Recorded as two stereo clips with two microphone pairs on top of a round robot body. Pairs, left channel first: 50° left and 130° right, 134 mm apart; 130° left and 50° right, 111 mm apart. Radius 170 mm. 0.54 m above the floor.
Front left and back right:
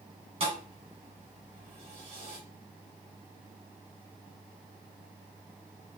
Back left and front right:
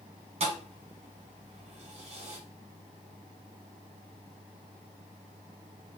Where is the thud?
80° right, 1.0 m.